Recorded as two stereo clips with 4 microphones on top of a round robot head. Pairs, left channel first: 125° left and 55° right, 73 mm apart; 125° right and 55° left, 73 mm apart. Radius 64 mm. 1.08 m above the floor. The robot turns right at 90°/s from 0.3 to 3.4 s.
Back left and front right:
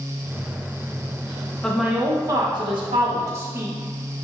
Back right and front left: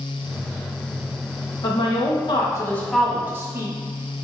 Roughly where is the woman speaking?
Behind.